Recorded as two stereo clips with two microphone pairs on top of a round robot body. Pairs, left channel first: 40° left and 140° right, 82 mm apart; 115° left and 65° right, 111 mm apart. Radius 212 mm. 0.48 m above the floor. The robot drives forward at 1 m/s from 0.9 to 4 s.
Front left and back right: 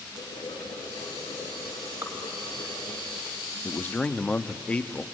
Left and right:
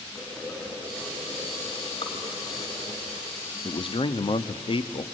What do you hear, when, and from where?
0.1 s boiling: 45° left, 4.5 m; by 3.0 s 75° left, 3.5 m
2.0 s dripping: 155° left, 2.5 m
3.6 s a man speaking: 80° left, 1.1 m; by 5.0 s 110° left, 1.2 m